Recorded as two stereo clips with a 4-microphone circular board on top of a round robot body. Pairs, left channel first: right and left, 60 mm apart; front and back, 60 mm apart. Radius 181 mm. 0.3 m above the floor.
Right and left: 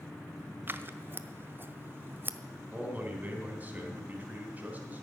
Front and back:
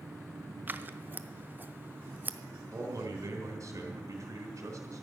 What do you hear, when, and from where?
0.7 s scissors: 130° left, 0.9 m
2.7 s a man speaking: 155° left, 3.5 m